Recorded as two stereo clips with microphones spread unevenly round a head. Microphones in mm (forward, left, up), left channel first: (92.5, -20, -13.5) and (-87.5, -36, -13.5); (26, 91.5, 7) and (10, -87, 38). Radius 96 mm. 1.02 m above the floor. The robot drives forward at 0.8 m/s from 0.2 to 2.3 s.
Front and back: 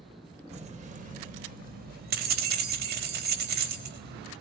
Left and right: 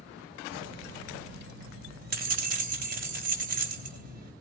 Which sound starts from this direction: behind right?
Keys jangling, at 0.5 s.